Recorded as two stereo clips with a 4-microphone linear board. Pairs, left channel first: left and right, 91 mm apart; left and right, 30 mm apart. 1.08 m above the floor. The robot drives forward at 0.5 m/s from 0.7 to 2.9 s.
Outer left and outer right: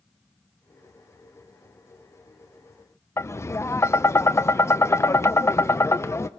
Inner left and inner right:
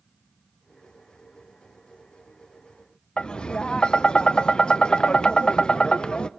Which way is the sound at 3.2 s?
30° left (ahead or behind).